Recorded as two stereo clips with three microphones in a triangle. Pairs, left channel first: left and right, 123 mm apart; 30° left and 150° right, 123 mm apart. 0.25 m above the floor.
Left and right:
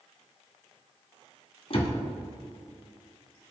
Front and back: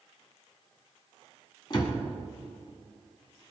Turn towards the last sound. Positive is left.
turn(degrees=75)